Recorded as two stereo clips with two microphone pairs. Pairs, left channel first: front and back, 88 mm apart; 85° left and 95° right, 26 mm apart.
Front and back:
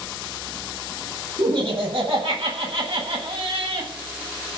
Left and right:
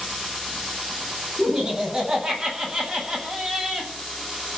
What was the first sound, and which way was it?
Laughter, 165° right.